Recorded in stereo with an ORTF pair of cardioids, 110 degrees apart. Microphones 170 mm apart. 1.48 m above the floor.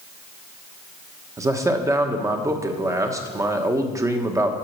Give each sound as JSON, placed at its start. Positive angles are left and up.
{"t": 1.4, "sound": "a man speaking", "azimuth_deg": -20, "distance_m": 1.2}